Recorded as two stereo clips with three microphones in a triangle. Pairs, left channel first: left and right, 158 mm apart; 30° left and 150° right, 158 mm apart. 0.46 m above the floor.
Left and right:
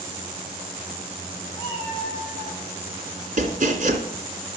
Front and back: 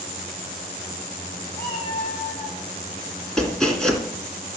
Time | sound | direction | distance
1.6 | a cat meowing | 20° left | 4 m
3.4 | chopping | 55° right | 3 m